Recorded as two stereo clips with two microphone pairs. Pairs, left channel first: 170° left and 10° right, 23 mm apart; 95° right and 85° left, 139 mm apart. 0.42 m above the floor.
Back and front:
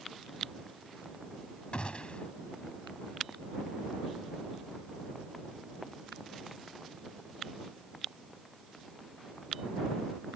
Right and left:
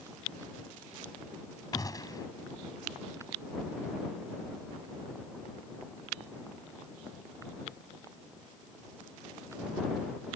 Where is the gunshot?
160° right.